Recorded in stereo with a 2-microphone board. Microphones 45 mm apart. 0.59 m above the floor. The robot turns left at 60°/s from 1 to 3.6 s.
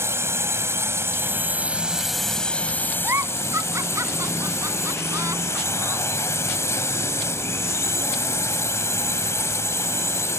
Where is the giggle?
55° right (ahead or behind); by 6.0 s 85° right.